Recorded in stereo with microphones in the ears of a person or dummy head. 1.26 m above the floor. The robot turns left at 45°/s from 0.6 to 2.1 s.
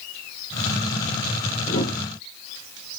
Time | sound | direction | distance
1.7 | a whoosh | 45° left (ahead or behind) | 1.2 m